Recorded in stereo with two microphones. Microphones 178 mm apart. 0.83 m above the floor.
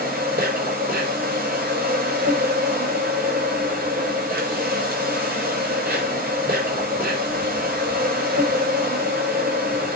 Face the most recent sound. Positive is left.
turn(degrees=-55)  # may be behind; listen again after turning